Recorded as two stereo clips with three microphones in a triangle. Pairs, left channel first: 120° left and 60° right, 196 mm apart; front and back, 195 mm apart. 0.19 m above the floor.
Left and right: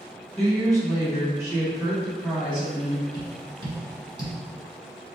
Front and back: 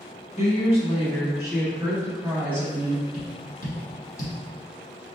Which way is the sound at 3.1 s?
5° right.